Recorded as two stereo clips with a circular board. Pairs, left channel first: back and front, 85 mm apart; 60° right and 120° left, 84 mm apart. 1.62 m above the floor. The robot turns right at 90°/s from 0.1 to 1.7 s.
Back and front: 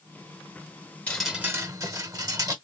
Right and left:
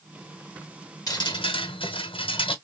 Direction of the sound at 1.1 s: 110° right.